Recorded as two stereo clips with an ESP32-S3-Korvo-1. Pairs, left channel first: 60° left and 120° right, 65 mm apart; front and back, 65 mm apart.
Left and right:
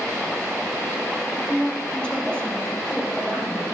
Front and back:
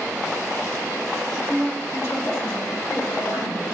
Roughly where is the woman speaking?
Ahead left.